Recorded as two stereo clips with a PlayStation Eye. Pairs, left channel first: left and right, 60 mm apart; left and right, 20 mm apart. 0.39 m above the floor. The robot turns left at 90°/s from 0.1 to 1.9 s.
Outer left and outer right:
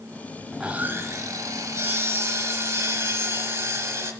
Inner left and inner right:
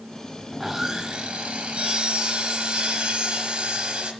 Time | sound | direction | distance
0.5 | sawing | 5° right | 1.1 m